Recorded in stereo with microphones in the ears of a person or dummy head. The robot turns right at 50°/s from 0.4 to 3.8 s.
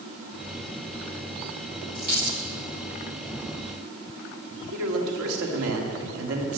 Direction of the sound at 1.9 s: 40° right (ahead or behind).